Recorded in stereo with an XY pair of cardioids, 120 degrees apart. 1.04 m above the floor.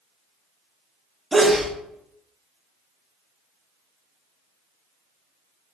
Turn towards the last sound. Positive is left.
turn(degrees=-5)